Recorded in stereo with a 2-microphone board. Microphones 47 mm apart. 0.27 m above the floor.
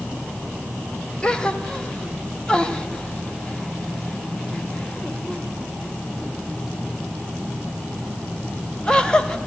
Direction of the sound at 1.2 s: 15° left (ahead or behind).